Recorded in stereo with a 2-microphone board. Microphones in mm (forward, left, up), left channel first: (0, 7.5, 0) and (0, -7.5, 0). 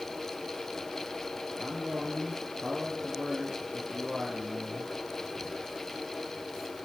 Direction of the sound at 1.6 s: 55° right (ahead or behind).